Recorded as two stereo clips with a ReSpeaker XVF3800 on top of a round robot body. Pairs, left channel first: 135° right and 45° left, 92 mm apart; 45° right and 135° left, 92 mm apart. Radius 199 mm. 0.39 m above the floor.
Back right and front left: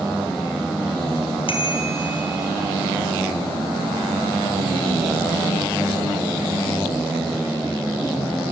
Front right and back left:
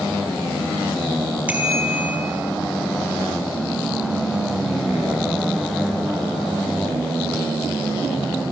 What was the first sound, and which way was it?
A bicycle bell, 150° right.